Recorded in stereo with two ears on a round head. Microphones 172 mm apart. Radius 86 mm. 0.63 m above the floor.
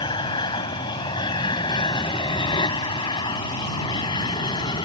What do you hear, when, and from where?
0.0 s an aircraft: 20° left (ahead or behind)